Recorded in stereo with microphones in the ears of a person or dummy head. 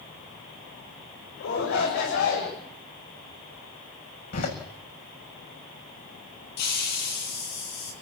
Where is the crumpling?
I don't hear crumpling.